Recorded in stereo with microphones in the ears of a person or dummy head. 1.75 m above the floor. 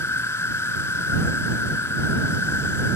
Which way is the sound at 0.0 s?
15° left (ahead or behind).